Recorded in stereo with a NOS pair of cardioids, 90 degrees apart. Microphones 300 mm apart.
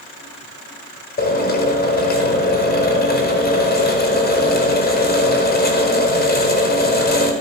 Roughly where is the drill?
Ahead left.